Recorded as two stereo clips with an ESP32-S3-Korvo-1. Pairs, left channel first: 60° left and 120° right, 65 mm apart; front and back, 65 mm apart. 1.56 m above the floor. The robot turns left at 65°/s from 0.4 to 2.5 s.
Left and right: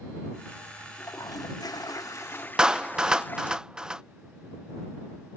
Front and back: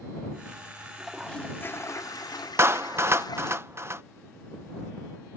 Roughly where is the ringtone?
No ringtone in this recording.